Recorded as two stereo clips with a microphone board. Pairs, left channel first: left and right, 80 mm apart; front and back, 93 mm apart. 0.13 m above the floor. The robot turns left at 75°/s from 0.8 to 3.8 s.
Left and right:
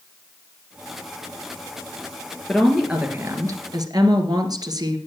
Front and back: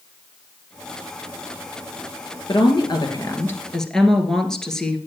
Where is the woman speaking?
15° left, 1.9 m; by 5.0 s 85° right, 1.9 m.